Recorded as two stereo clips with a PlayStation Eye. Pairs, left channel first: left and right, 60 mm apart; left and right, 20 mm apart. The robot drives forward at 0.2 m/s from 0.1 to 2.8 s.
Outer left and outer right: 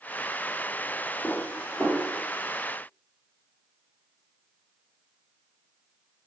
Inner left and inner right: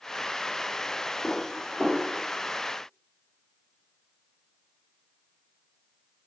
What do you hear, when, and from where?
1.2 s dishes clattering: 20° left (ahead or behind), 1.0 m